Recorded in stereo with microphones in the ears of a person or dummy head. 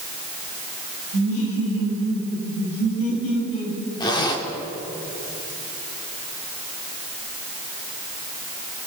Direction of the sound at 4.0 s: 25° left (ahead or behind).